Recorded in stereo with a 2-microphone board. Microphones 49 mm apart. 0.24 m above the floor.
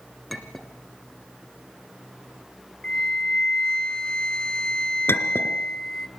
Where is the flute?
15° left (ahead or behind), 1.2 m.